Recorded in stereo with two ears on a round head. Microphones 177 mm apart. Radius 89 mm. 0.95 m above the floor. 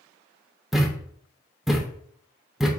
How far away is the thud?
About 0.6 m.